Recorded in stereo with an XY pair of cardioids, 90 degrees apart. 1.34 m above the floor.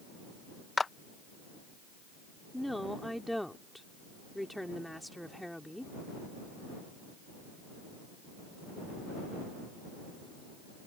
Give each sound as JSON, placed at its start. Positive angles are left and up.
{"t": 0.8, "sound": "a clap", "azimuth_deg": 30}
{"t": 2.5, "sound": "a woman speaking", "azimuth_deg": 0}